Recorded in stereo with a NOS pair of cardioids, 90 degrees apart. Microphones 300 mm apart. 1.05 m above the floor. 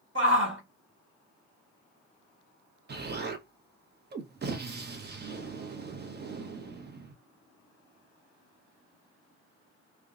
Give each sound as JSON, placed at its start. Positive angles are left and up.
{"t": 0.1, "sound": "a shout", "azimuth_deg": -40, "distance_m": 1.6}
{"t": 2.9, "sound": "an explosion", "azimuth_deg": -35, "distance_m": 0.7}